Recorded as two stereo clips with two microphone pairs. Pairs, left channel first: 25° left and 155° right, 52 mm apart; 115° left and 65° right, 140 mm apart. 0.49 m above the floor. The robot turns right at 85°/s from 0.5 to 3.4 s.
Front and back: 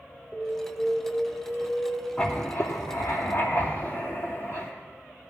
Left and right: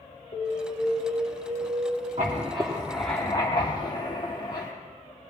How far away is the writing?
About 2.5 m.